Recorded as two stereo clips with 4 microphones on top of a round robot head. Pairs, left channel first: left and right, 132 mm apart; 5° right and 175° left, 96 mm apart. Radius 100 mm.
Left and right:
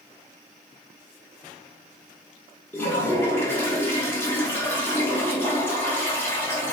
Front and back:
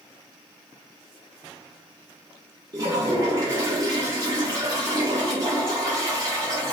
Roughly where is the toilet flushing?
Behind left.